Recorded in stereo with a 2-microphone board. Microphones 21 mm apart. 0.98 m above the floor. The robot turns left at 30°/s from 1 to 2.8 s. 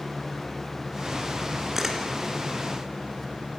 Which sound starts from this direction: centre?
A camera shutter, at 1.8 s.